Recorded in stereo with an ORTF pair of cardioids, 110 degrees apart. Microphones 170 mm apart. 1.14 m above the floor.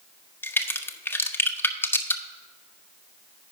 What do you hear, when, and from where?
0.4 s a crack: 10° left, 0.9 m